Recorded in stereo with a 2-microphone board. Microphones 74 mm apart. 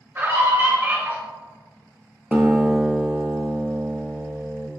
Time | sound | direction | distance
0.1 | a scream | 35° right (ahead or behind) | 1.9 m
2.3 | a guitar | 20° right (ahead or behind) | 0.6 m